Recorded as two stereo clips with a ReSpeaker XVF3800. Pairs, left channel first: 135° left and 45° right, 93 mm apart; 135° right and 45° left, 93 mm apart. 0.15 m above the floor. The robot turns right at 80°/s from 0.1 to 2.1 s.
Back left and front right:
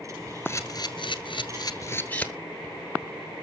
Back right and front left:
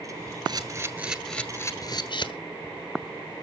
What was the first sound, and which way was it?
A camera shutter, 75° left.